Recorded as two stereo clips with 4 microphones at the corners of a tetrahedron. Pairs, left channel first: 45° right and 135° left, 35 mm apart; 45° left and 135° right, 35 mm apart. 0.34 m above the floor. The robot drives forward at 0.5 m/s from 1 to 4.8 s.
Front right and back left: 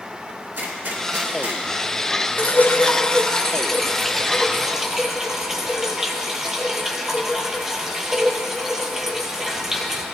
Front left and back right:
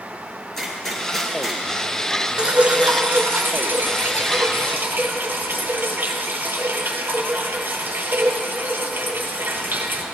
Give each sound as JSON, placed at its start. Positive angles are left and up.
{"t": 0.6, "sound": "a gunshot", "azimuth_deg": 125, "distance_m": 2.0}
{"t": 2.4, "sound": "dripping", "azimuth_deg": -75, "distance_m": 0.7}